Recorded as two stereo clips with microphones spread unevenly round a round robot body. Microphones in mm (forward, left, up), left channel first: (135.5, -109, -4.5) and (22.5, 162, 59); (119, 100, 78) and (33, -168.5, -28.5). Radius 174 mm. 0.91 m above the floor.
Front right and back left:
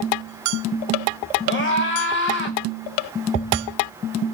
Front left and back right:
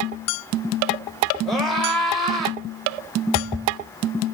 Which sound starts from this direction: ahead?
A scream, at 1.4 s.